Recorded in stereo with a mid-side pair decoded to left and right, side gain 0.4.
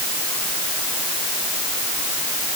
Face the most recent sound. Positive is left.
No sound to turn to.